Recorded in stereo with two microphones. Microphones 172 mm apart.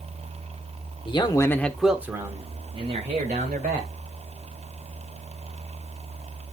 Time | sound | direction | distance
1.1 | a man speaking | 30° left (ahead or behind) | 1.2 m